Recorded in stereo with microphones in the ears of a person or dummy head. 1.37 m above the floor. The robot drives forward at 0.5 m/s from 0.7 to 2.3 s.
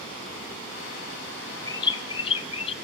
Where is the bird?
25° left (ahead or behind), 1.2 m; by 2.7 s 30° left (ahead or behind), 1.0 m.